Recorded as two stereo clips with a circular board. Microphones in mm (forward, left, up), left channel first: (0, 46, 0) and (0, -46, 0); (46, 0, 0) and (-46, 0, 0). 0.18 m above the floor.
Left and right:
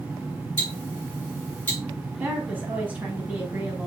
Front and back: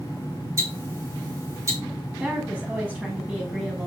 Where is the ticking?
150° left, 1.7 m.